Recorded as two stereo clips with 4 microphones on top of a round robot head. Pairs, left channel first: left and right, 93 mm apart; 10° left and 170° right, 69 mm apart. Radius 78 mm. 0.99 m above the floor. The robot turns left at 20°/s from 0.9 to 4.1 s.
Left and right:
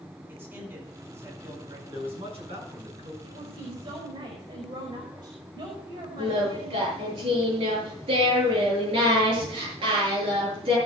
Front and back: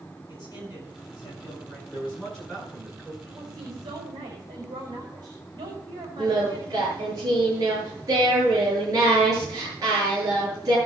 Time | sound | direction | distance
0.3 | a man speaking | 25° right | 8 m
1.9 | a man speaking | 65° right | 8 m
3.2 | a woman speaking | 120° right | 5 m
6.2 | singing | 120° right | 7.5 m